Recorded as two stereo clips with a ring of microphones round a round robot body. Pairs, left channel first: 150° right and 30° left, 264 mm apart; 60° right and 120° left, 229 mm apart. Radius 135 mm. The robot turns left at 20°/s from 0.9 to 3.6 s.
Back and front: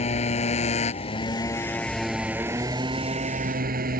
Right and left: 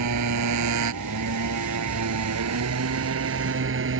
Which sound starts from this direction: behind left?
A motorcycle, at 0.0 s.